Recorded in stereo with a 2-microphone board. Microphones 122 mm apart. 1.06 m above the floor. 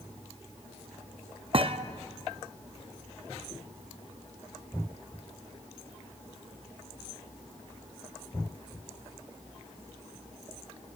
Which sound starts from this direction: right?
A thud, at 1.5 s.